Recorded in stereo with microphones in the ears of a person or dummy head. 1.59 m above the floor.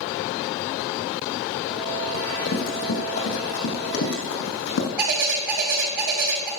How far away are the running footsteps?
About 3 m.